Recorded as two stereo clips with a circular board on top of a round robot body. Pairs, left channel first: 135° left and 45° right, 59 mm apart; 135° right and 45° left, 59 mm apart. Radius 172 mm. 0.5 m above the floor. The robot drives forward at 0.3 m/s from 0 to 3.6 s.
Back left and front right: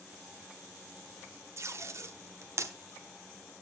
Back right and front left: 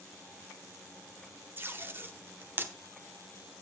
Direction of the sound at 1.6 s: 5° right.